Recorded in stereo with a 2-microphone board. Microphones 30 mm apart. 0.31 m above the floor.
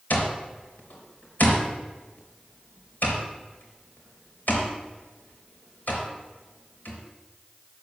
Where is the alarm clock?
75° left (ahead or behind), 3.5 m.